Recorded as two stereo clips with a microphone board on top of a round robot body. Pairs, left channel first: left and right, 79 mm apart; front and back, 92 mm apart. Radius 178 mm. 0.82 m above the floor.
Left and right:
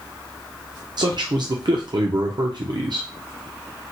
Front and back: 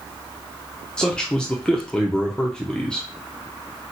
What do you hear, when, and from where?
1.0 s a man speaking: 80° right, 0.7 m